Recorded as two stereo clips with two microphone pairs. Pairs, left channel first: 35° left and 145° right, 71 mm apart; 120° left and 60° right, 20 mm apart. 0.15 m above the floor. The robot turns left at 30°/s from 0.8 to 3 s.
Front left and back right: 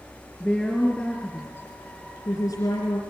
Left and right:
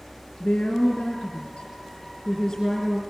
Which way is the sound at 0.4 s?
110° left.